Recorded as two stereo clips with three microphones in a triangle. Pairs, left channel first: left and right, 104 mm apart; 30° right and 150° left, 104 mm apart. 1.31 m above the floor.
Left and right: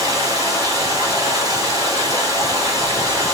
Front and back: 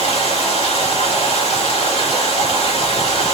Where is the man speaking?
No man speaking in this recording.